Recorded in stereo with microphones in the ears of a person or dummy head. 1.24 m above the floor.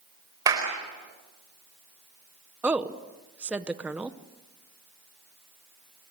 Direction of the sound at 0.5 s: 20° right (ahead or behind).